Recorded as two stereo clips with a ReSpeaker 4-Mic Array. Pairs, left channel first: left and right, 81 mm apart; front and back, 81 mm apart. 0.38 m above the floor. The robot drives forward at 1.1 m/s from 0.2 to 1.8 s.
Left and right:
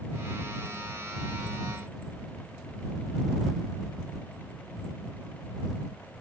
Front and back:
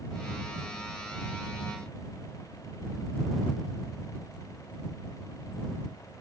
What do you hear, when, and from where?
Only background noise.